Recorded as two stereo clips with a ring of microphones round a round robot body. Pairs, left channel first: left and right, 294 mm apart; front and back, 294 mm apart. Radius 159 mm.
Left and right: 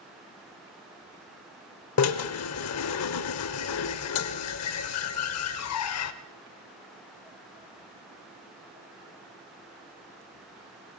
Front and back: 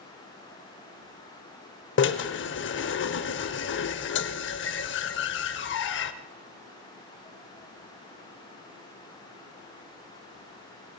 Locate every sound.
2.0 s a drill: 50° left, 0.7 m